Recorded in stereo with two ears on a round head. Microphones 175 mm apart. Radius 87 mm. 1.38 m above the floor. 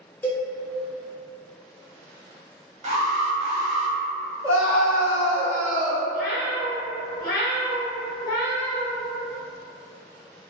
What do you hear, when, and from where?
0.2 s a cowbell: 10° left (ahead or behind), 0.8 m
2.8 s an alarm: 35° right (ahead or behind), 1.2 m
4.4 s a scream: 5° left (ahead or behind), 1.8 m
6.1 s a cat meowing: 50° left (ahead or behind), 1.0 m